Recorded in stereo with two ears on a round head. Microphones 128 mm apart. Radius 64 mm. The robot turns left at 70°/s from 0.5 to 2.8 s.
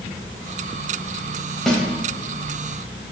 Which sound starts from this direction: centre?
A snare drum, at 1.7 s.